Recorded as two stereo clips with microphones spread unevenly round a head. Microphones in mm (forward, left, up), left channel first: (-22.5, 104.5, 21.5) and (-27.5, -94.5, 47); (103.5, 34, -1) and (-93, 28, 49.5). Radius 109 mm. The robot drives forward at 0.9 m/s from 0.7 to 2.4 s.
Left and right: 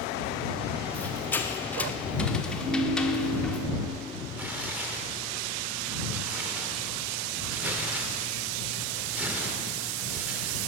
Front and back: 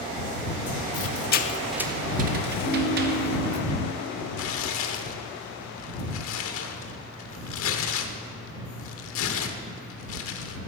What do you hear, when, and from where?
0.9 s a squeak: straight ahead, 0.8 m; by 3.6 s straight behind, 0.9 m
2.6 s a ringtone: 100° right, 2.5 m
4.4 s tearing paper: 20° right, 0.8 m